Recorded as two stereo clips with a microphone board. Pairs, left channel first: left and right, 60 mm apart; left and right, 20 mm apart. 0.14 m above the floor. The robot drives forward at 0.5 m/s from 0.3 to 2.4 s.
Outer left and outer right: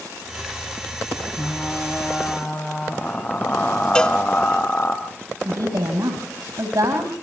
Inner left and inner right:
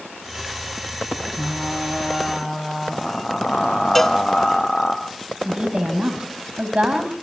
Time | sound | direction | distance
1.4 | frying | 25° left (ahead or behind) | 3 m
4.0 | a cowbell | 15° left (ahead or behind) | 1.1 m
5.5 | a woman speaking | 70° right (ahead or behind) | 5 m